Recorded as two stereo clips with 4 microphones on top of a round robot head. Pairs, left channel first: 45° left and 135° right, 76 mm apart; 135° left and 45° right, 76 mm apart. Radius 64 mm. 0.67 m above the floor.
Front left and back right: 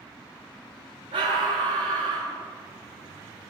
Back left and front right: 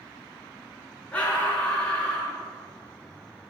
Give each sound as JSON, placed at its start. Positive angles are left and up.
{"t": 1.1, "sound": "a scream", "azimuth_deg": -150, "distance_m": 9.5}